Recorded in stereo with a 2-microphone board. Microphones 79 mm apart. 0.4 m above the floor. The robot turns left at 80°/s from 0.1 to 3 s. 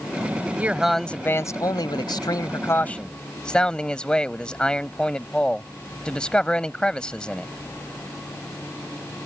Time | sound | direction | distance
0.6 | a man speaking | 155° right | ?